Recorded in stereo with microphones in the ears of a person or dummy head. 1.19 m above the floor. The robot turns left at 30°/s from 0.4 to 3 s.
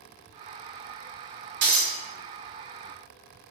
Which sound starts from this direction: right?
Breaking glass, at 1.6 s.